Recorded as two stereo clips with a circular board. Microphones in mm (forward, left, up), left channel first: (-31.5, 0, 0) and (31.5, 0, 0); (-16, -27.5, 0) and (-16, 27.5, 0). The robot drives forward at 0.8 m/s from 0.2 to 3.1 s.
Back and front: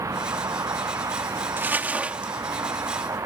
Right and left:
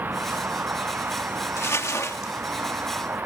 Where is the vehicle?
35° left.